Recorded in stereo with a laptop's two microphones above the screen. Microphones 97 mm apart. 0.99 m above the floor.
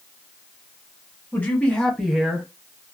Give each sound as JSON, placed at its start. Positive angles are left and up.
{"t": 1.3, "sound": "a man speaking", "side_deg": 20, "distance_m": 1.3}